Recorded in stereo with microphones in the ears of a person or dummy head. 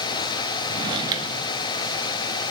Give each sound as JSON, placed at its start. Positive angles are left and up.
{"t": 0.7, "sound": "a drawer", "side_deg": -25, "distance_m": 1.3}